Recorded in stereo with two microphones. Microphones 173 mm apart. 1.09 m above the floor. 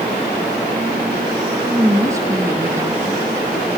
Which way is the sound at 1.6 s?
15° right (ahead or behind).